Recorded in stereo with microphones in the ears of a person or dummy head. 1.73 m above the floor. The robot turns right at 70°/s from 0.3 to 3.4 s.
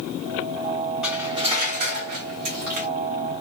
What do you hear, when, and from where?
1.0 s cutlery clinking: 175° right, 1.6 m; by 2.9 s 45° right, 1.6 m